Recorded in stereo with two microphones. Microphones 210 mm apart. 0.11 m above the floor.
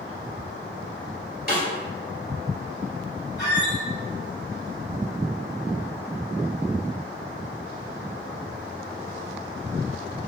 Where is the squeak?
55° left (ahead or behind), 1.9 m.